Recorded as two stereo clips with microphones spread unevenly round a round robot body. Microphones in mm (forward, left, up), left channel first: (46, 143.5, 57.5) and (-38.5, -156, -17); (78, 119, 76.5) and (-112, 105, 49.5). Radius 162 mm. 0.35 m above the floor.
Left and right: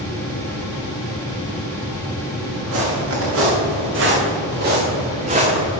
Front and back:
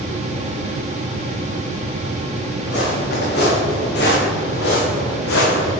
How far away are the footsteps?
About 3 m.